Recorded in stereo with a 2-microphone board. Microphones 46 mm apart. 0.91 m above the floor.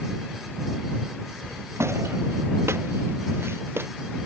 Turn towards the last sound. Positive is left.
turn(degrees=-60)  # may be behind; listen again after turning